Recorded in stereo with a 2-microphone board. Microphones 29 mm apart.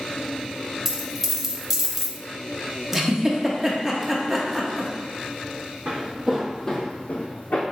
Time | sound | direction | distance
0.8 | a dropped coin | 10° right (ahead or behind) | 0.7 m
2.9 | a giggle | 10° right (ahead or behind) | 0.7 m
5.8 | footsteps | 35° right (ahead or behind) | 1.1 m